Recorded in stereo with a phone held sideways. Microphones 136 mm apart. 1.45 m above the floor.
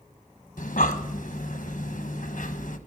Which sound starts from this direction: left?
Breathing, at 0.6 s.